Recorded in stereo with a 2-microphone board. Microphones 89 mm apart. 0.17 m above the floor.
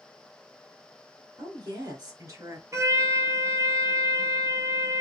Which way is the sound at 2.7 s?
35° right (ahead or behind).